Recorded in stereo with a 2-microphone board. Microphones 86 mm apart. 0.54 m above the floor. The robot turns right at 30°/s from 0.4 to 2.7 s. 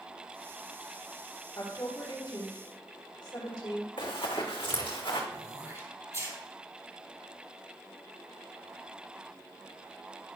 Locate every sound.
1.6 s a woman speaking: 45° left, 1.8 m; by 3.9 s 80° left, 1.8 m
4.0 s running footsteps: 75° left (ahead or behind), 2.0 m; by 5.2 s 70° left (ahead or behind), 2.5 m
5.3 s throat clearing: 35° right (ahead or behind), 2 m